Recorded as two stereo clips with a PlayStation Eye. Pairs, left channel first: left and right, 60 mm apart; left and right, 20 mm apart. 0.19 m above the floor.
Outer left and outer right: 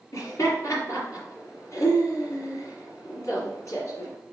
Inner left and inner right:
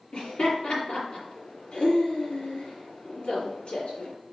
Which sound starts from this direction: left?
Laughter, at 0.1 s.